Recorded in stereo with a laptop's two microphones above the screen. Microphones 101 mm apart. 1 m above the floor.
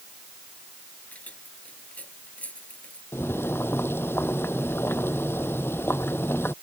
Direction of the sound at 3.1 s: 20° left (ahead or behind).